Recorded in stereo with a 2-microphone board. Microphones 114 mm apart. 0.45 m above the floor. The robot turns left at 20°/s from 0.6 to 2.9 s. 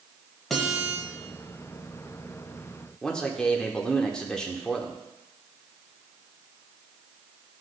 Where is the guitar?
Centre (ahead or behind), 1.5 m; by 1.0 s 5° right (ahead or behind), 1.5 m.